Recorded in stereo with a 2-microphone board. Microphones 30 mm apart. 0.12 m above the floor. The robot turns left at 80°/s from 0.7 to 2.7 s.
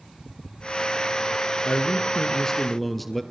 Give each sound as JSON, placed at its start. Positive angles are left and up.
{"t": 1.6, "sound": "a man speaking", "azimuth_deg": 90, "distance_m": 2.0}